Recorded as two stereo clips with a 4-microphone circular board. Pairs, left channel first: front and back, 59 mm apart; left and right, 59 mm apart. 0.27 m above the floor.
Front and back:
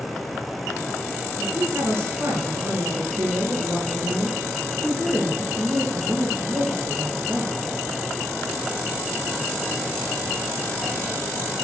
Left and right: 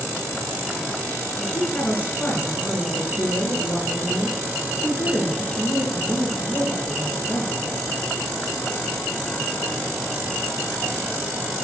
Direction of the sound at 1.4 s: 145° left.